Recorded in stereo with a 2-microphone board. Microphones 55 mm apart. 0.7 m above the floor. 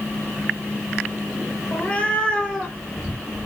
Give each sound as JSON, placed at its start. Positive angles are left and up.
{"t": 1.7, "sound": "a cat meowing", "side_deg": 25, "distance_m": 2.0}